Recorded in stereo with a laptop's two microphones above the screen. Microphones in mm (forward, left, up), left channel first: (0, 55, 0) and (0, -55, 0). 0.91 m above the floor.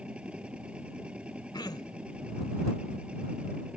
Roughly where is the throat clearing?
Left.